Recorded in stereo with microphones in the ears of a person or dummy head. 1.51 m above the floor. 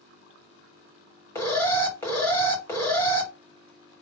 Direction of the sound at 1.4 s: 15° left (ahead or behind).